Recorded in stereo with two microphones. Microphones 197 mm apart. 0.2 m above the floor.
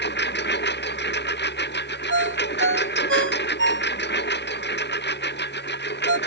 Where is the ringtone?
75° right (ahead or behind).